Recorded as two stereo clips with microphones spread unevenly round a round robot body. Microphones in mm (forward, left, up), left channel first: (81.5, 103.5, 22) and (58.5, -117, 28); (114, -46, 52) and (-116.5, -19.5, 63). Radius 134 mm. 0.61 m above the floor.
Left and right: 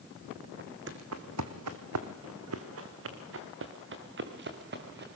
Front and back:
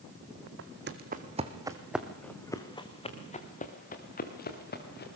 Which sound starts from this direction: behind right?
Footsteps, at 0.6 s.